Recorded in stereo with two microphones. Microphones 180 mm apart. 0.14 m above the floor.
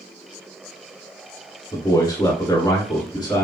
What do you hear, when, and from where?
1.7 s a man speaking: 20° left (ahead or behind), 1.2 m